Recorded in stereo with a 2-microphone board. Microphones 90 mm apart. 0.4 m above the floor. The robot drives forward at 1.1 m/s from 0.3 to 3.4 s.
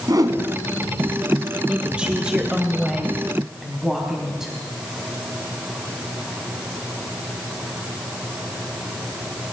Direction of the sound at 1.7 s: 15° right (ahead or behind).